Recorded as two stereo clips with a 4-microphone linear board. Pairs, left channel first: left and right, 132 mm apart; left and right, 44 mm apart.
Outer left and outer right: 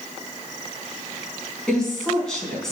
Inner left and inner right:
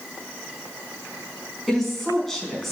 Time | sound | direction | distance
1.7 | a woman speaking | 5° left (ahead or behind) | 4.5 m